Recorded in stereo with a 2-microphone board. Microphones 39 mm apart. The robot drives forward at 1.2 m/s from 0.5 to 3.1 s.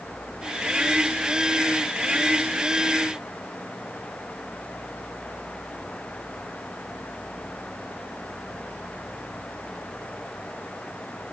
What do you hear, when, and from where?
Only background noise.